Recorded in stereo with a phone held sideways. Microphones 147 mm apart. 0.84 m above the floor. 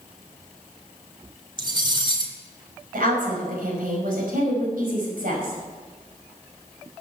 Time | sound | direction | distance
1.6 | cutlery clinking | 30° right (ahead or behind) | 1.7 m
2.9 | a woman speaking | 70° right (ahead or behind) | 5.5 m